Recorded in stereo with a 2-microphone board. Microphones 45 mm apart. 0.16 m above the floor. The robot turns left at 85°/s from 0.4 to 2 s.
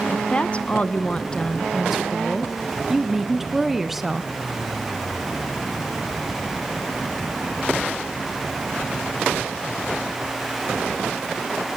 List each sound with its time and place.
0.1 s a woman speaking: 25° left (ahead or behind), 1.1 m; by 4.3 s 5° right (ahead or behind), 1.1 m